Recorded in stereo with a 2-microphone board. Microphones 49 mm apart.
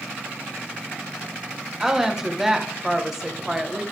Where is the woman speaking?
10° right (ahead or behind), 1.0 m.